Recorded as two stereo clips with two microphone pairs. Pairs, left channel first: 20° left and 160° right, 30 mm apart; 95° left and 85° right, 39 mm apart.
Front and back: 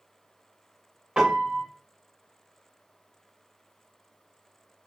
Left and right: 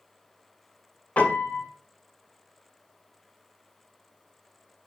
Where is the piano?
145° left, 2 m.